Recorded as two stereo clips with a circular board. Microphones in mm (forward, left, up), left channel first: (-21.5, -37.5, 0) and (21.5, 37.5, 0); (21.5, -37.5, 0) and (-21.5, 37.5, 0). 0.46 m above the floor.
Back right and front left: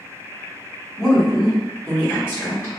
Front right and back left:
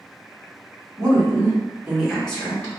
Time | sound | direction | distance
1.0 | a woman speaking | 145° left | 1.7 m